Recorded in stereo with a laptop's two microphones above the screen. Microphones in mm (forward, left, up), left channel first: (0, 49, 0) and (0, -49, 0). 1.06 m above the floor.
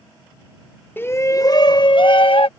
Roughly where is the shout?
Left.